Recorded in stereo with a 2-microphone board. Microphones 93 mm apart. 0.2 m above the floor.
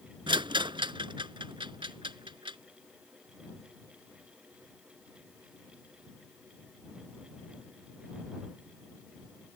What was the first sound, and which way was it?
A rattle, 60° right (ahead or behind).